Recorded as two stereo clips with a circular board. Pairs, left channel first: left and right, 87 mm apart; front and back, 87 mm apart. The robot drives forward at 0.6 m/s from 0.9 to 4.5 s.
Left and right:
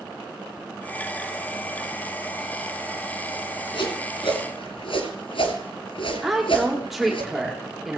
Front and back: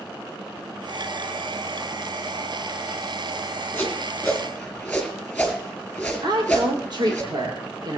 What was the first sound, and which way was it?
A whoosh, 70° left.